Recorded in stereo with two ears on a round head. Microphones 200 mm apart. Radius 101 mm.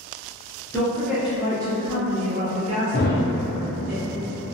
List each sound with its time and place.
0.7 s a woman speaking: 10° left (ahead or behind), 0.7 m; by 3.9 s 40° right (ahead or behind), 1.5 m
2.9 s a thud: 45° left (ahead or behind), 0.6 m